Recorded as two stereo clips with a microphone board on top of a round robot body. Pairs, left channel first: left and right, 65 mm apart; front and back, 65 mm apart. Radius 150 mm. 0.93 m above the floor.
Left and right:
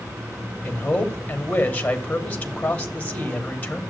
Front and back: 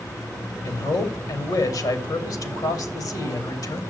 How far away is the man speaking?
About 3 m.